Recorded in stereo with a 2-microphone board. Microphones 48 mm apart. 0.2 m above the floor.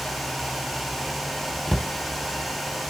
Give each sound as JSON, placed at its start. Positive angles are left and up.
{"t": 1.7, "sound": "a cupboard door", "side_deg": 5, "distance_m": 0.6}